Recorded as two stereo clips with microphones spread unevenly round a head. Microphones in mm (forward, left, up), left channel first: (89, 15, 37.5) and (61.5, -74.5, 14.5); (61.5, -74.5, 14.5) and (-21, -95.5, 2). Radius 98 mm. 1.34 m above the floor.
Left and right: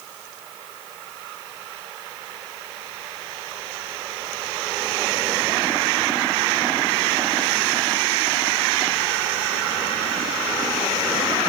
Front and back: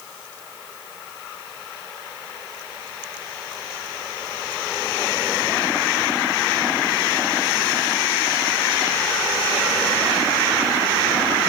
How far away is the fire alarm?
I don't hear a fire alarm.